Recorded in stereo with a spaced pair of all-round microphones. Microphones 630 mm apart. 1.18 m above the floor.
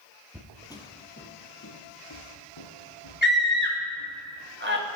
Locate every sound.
0.3 s footsteps: 5° right (ahead or behind), 1.2 m; by 4.1 s 55° left (ahead or behind), 2.5 m
3.2 s a scream: 15° right (ahead or behind), 1.9 m